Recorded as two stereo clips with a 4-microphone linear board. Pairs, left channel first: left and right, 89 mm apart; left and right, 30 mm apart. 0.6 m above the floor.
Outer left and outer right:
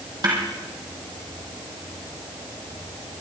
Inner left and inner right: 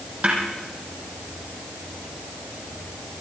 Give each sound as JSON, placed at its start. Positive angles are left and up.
{"t": 0.2, "sound": "a snare drum", "side_deg": -50, "distance_m": 4.0}